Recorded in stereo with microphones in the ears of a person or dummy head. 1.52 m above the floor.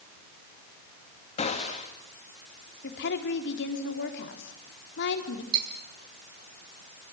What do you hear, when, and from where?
1.4 s a gunshot: 35° left (ahead or behind), 3 m
2.8 s a woman speaking: 65° left (ahead or behind), 4 m
5.5 s cutlery clinking: 25° right (ahead or behind), 9.5 m